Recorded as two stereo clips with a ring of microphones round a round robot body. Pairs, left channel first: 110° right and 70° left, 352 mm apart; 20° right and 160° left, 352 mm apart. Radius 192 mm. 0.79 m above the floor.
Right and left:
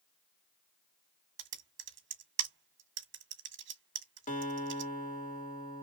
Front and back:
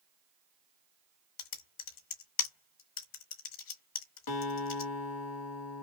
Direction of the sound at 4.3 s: 45° right.